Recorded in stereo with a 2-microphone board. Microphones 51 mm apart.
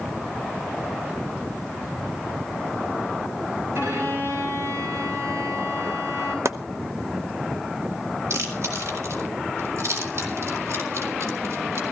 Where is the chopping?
70° right (ahead or behind), 0.9 m.